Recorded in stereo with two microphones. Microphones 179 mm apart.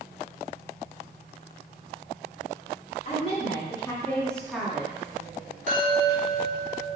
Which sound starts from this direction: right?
A chime, at 5.7 s.